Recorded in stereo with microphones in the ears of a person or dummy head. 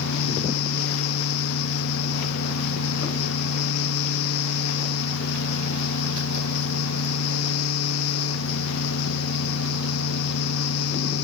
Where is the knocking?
I don't hear knocking.